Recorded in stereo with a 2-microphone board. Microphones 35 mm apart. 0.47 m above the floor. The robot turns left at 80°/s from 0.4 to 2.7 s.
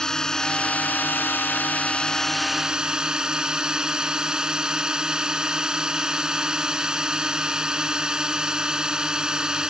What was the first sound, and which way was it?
A drone, 160° left.